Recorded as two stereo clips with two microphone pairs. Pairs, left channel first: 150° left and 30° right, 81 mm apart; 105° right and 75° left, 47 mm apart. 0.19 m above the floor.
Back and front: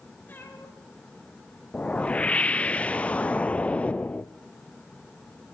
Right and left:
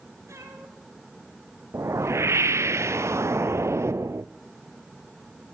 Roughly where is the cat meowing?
Left.